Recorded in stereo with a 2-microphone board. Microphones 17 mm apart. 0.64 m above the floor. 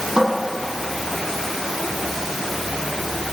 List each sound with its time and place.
0.2 s a cupboard door: 75° right (ahead or behind), 5.5 m